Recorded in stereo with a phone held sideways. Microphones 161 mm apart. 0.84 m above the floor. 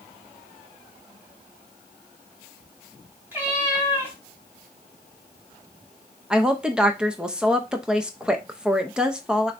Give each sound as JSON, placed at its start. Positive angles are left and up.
{"t": 3.3, "sound": "a cat meowing", "side_deg": -10, "distance_m": 3.0}
{"t": 6.3, "sound": "a woman speaking", "side_deg": -5, "distance_m": 0.7}